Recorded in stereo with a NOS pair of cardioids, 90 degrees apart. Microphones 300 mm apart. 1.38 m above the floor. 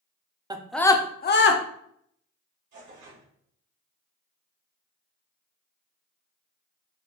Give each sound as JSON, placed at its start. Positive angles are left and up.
{"t": 0.5, "sound": "a scream", "azimuth_deg": -15, "distance_m": 0.6}
{"t": 2.7, "sound": "tearing paper", "azimuth_deg": -70, "distance_m": 1.9}